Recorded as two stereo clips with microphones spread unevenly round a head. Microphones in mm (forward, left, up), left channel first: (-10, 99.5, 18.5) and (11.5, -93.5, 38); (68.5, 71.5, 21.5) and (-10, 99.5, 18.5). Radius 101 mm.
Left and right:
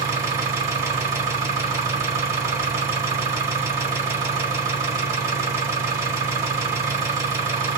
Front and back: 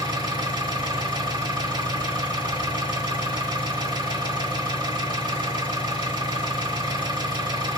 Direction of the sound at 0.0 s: 150° right.